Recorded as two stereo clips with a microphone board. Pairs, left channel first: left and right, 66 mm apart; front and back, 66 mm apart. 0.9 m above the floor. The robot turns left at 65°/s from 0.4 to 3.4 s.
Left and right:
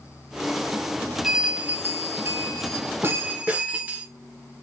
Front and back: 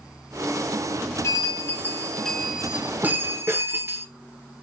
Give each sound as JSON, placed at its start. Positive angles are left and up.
{"t": 1.2, "sound": "a bell", "azimuth_deg": -10, "distance_m": 0.9}